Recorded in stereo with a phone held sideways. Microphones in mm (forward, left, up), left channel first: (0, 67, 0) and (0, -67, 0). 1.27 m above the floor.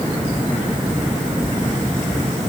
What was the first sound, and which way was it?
Only background noise.